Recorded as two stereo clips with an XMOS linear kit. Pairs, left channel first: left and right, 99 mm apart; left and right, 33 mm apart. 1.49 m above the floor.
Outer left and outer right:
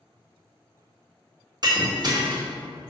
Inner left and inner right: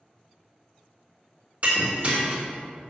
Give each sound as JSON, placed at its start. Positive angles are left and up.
{"t": 1.6, "sound": "breaking glass", "side_deg": -45, "distance_m": 1.8}